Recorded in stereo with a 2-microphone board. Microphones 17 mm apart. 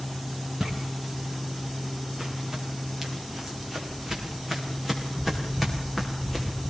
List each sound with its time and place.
0.6 s footsteps: 30° right (ahead or behind), 8 m; by 6.7 s 10° right (ahead or behind), 6.5 m